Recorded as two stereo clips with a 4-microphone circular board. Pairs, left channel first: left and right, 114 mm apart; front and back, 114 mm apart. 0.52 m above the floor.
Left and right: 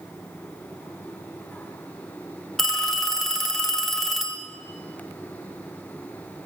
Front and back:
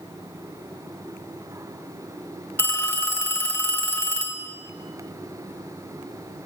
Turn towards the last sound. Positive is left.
turn(degrees=10)